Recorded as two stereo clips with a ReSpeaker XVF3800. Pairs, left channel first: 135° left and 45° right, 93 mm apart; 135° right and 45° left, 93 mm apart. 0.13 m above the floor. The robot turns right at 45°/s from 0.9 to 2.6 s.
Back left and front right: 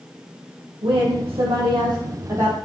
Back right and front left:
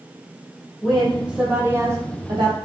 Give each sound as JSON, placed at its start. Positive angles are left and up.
{"t": 0.8, "sound": "a woman speaking", "azimuth_deg": -55, "distance_m": 4.0}